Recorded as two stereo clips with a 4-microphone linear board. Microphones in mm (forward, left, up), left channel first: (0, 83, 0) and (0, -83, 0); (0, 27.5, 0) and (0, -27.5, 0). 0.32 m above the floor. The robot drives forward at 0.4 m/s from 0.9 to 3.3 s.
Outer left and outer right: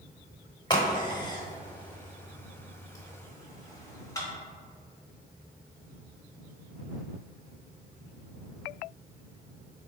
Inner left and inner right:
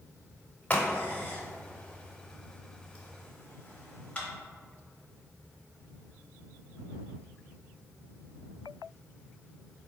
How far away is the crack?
About 0.9 m.